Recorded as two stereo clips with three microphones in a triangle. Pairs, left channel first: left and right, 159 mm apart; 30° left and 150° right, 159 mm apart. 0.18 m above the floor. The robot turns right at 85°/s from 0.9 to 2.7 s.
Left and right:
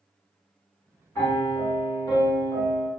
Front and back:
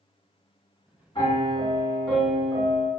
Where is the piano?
35° left, 1.9 m; by 2.9 s 165° left, 1.9 m.